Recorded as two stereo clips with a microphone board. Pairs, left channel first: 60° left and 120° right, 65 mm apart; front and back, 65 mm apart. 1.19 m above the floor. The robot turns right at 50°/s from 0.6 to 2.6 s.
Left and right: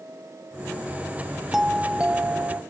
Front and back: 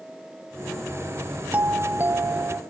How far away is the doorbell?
About 0.9 m.